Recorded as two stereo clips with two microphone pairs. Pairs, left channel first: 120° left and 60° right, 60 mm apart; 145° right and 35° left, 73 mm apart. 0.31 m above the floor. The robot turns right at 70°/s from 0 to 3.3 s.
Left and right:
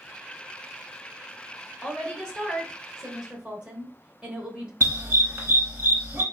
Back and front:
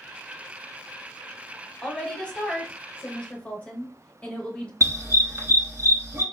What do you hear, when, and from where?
1.8 s a woman speaking: 140° left, 0.9 m; by 4.7 s 115° right, 0.9 m
4.8 s a dog barking: 15° right, 1.1 m